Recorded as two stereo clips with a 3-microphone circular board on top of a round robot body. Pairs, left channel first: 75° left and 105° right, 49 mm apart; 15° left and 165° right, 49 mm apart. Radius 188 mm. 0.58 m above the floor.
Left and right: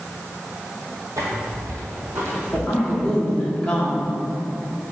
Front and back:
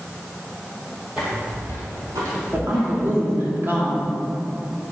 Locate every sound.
1.2 s footsteps: 95° right, 0.6 m; by 3.4 s 160° right, 2 m
2.5 s a woman speaking: 155° left, 2.5 m